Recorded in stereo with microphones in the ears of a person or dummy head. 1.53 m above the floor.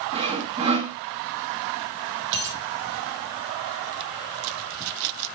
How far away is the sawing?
About 1.4 m.